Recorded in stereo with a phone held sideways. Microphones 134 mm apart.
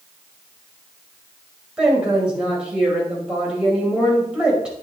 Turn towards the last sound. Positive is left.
turn(degrees=-5)  # may be behind; listen again after turning